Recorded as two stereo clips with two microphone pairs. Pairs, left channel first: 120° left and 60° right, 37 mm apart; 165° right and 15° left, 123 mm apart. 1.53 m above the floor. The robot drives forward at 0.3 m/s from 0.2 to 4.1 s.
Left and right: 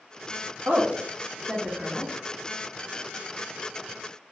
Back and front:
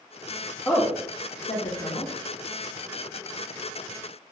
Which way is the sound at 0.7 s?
95° right.